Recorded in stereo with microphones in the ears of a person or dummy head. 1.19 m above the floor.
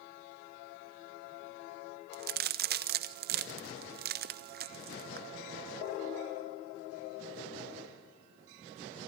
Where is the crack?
45° right (ahead or behind), 0.9 m.